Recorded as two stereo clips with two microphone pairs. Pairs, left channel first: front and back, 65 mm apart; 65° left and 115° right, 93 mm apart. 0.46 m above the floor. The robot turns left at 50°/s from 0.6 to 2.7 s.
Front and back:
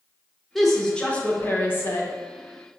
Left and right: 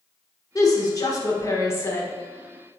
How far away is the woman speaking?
About 0.9 m.